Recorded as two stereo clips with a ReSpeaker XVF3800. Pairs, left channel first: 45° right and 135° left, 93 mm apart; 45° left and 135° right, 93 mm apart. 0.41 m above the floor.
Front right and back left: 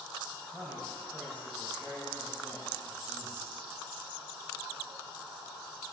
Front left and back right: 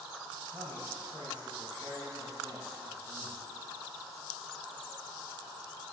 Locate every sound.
0.3 s a man speaking: 140° right, 2.5 m; by 3.5 s 95° right, 4 m